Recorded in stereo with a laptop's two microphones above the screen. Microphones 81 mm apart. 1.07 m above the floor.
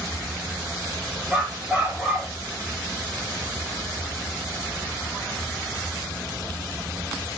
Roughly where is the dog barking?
Centre.